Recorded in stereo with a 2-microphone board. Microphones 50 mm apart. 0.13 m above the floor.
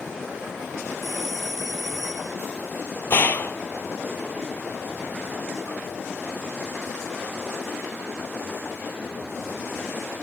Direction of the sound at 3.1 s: 45° left (ahead or behind).